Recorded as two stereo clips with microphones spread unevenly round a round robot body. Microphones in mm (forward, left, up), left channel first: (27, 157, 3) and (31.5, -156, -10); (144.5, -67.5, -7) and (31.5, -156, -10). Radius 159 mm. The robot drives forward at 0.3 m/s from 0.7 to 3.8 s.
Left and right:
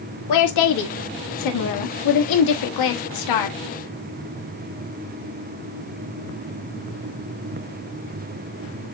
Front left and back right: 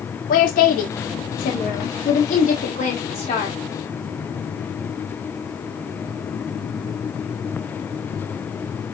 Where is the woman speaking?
65° left, 1.4 m; by 3.6 s 105° left, 1.3 m.